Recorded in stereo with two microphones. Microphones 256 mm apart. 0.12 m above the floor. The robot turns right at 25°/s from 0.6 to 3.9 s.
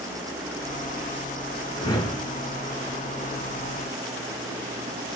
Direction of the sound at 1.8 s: 15° left (ahead or behind).